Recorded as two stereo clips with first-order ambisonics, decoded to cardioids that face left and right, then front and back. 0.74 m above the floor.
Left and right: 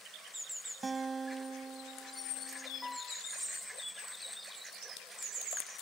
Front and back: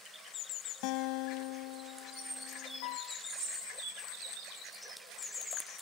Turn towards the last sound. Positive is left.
turn(degrees=10)